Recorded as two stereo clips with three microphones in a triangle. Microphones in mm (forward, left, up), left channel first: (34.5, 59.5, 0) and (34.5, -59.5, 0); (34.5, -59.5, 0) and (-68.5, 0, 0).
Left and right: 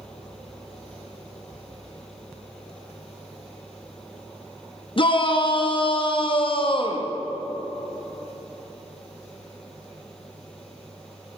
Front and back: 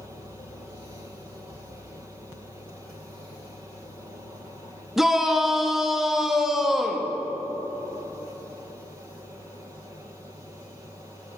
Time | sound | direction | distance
5.0 | a shout | 65° left | 0.6 m